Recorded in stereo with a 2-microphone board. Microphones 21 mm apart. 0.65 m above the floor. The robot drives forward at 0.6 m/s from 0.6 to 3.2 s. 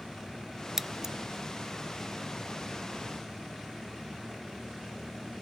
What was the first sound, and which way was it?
Scissors, 25° right (ahead or behind).